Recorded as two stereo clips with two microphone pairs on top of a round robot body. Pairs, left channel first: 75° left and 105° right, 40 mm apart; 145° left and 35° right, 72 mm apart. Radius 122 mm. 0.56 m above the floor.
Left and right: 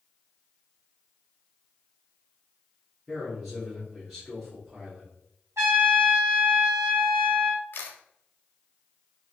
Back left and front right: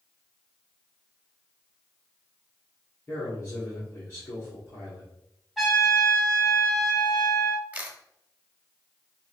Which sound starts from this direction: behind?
A man speaking, at 3.1 s.